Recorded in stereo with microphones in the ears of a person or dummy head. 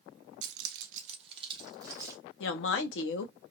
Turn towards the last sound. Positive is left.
turn(degrees=75)  # may be behind; listen again after turning